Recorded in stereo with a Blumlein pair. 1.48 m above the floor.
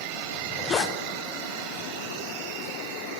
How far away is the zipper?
About 0.5 m.